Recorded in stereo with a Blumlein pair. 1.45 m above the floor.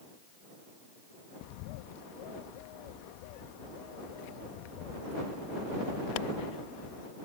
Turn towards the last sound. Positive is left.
turn(degrees=45)